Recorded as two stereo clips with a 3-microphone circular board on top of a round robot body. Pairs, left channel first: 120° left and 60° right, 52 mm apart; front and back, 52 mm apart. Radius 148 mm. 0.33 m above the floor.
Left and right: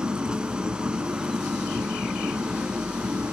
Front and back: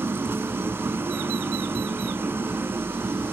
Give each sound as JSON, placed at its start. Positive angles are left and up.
{"t": 0.0, "sound": "an engine running", "azimuth_deg": -135, "distance_m": 1.5}